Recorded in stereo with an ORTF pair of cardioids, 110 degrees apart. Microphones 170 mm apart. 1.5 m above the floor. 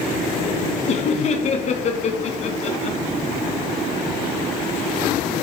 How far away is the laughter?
About 1.3 m.